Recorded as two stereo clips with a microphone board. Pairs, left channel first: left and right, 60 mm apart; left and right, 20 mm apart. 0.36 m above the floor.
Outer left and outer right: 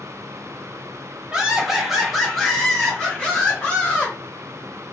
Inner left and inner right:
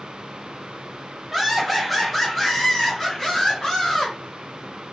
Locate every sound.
1.3 s laughter: 10° right (ahead or behind), 1.4 m; by 4.2 s 20° left (ahead or behind), 1.8 m